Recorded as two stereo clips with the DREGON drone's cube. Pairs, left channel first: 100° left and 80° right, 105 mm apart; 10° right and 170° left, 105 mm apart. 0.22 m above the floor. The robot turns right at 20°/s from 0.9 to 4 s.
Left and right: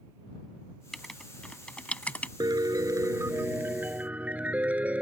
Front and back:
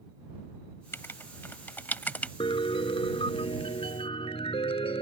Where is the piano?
35° right; by 5.0 s 5° right.